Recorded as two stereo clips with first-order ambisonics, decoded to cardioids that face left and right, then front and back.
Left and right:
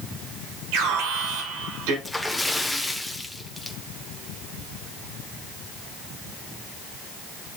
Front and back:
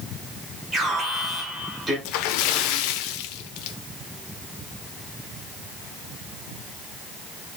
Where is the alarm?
95° right, 5.5 m.